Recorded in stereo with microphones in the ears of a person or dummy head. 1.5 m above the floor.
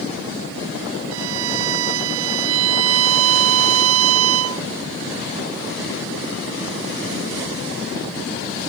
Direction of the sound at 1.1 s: 80° right.